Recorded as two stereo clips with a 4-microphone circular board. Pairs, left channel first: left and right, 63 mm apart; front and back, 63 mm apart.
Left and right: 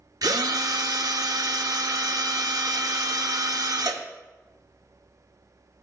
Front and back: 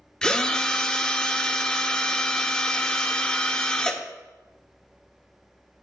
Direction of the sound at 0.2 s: 80° right.